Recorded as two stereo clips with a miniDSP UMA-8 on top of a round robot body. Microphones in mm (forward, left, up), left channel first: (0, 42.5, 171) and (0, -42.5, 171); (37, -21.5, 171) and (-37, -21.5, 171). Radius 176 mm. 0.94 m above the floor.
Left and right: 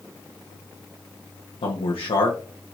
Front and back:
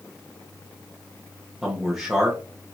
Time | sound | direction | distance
1.6 | a man speaking | 90° left | 1.1 m